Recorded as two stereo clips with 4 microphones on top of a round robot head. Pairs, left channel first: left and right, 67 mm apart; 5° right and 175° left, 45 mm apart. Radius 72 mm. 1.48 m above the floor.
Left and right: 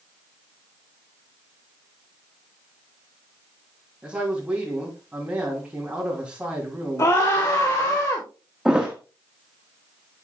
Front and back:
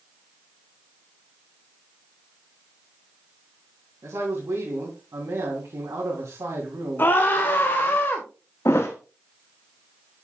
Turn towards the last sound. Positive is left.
turn(degrees=-10)